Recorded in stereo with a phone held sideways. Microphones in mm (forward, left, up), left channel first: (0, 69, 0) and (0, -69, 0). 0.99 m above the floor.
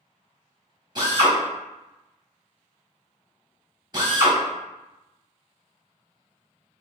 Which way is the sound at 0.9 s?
30° right (ahead or behind).